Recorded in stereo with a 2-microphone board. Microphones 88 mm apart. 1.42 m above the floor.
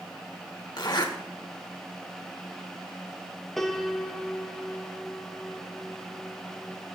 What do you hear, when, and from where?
0.8 s a zipper: 55° left (ahead or behind), 1.6 m
3.6 s a piano: 5° left (ahead or behind), 0.9 m